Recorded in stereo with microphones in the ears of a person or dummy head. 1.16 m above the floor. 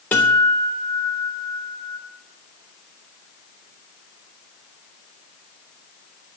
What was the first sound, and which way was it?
A guitar, 10° left (ahead or behind).